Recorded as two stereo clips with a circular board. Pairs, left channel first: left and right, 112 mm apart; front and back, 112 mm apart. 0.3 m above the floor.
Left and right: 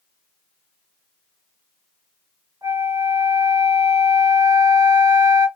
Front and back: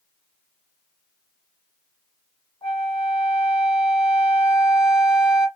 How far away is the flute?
About 2.5 m.